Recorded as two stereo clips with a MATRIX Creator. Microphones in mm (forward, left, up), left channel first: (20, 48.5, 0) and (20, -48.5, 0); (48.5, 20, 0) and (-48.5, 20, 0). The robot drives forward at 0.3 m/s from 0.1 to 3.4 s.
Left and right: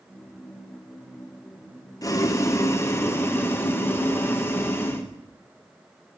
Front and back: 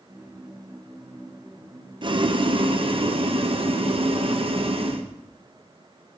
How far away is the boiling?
About 0.9 m.